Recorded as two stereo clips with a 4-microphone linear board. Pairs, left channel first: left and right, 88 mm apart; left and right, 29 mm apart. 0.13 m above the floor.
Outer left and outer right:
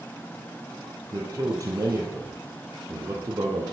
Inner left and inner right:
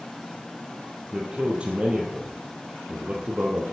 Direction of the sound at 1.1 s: 40° right (ahead or behind).